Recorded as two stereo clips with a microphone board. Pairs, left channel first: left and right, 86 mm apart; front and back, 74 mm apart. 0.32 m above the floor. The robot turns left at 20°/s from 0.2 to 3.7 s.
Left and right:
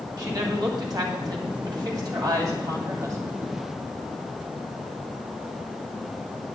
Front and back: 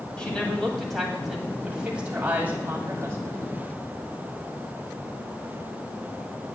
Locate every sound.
0.2 s a woman speaking: 75° right, 2 m; by 3.5 s 140° right, 2 m